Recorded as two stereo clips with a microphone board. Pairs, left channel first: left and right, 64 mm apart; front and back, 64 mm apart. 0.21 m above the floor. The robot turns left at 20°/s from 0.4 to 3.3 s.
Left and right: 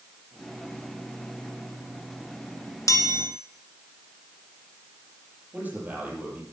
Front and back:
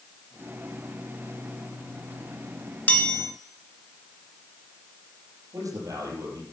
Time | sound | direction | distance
2.9 | a chime | 60° left | 2.0 m
5.5 | a man speaking | 160° right | 5.5 m